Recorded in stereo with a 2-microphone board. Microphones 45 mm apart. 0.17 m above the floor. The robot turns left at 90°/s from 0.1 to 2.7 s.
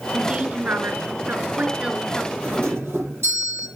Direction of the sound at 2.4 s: 40° right (ahead or behind).